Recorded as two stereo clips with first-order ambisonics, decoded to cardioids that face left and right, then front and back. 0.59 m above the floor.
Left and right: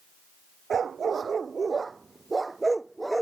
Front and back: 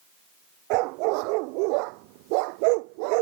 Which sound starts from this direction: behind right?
A dog barking, at 0.7 s.